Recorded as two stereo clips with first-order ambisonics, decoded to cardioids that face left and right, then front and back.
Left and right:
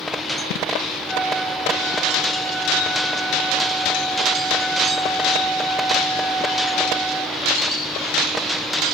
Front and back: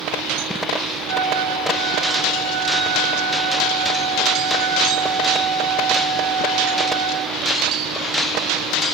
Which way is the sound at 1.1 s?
175° right.